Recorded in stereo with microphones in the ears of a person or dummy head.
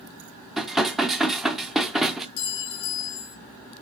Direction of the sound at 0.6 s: Centre (ahead or behind).